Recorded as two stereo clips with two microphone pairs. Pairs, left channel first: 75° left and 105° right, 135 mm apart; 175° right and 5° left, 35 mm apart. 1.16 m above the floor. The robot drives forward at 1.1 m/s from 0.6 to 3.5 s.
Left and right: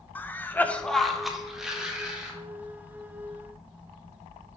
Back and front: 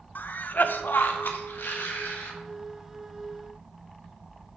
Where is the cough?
155° left, 0.7 m; by 2.3 s 175° left, 2.5 m.